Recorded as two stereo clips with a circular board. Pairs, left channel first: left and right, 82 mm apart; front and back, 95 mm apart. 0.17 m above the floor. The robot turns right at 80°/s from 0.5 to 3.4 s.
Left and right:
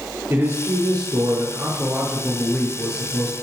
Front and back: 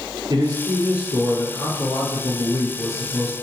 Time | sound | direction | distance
0.3 | a man speaking | 145° right | 4 m